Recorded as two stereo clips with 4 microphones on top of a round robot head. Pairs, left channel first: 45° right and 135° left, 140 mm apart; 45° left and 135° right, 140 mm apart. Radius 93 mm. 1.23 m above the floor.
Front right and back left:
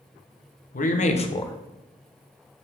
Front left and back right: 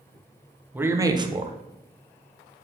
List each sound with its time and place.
0.7 s a man speaking: 60° right, 1.2 m; by 2.6 s 165° right, 1.4 m